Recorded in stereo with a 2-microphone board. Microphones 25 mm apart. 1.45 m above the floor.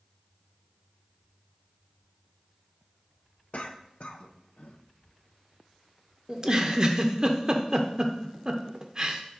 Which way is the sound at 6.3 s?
25° right (ahead or behind).